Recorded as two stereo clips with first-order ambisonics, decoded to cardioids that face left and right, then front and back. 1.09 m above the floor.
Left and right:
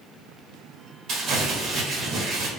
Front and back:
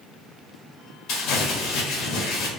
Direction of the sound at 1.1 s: 35° right.